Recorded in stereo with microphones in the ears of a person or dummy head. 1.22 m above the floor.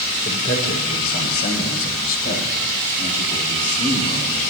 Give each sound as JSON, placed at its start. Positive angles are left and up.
{"t": 0.2, "sound": "a man speaking", "side_deg": 55, "distance_m": 3.0}